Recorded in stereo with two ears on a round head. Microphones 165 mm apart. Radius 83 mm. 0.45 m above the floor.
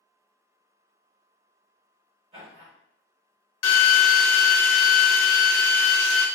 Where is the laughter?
35° right (ahead or behind), 1.5 m.